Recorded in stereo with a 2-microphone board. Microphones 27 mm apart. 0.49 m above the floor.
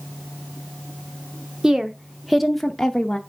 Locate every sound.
1.6 s a woman speaking: 20° right (ahead or behind), 0.8 m; by 3.2 s 20° left (ahead or behind), 0.7 m